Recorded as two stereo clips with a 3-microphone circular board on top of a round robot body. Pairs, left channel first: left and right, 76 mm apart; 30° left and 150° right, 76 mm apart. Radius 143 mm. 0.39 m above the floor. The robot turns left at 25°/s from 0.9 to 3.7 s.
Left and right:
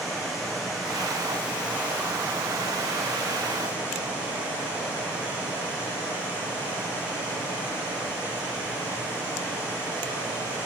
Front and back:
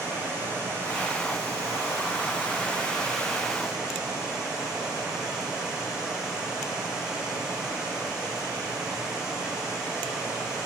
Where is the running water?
Straight ahead, 7 m; by 10.7 s 70° right, 7 m.